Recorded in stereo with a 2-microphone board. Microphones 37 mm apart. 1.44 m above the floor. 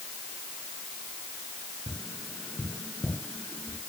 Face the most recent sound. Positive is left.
turn(degrees=25)  # may be behind; listen again after turning